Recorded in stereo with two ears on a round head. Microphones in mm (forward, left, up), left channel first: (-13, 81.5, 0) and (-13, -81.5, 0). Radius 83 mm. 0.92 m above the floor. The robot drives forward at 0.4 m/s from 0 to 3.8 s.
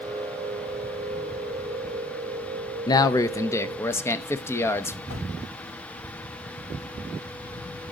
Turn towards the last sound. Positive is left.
turn(degrees=85)